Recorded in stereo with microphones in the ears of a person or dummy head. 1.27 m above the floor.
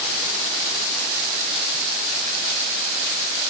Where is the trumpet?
I don't hear a trumpet.